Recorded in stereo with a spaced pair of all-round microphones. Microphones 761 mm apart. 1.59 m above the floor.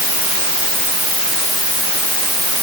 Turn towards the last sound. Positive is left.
No sound to turn to.